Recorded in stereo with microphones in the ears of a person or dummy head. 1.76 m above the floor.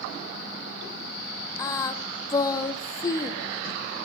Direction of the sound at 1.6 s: 25° left (ahead or behind).